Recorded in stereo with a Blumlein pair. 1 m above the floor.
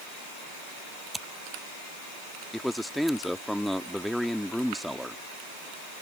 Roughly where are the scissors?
Ahead.